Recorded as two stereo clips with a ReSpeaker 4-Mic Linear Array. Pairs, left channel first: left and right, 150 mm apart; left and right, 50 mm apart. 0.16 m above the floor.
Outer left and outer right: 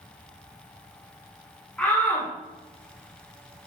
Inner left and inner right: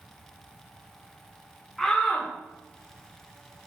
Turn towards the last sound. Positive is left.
turn(degrees=10)  # may be behind; listen again after turning